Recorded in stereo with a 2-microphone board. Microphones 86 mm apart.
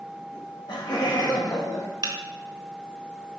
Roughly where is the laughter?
Left.